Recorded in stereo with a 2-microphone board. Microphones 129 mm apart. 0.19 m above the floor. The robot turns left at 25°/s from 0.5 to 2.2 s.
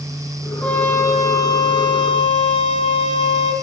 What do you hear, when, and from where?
0.6 s a trumpet: 170° left, 5.5 m; by 3.5 s 130° left, 5.5 m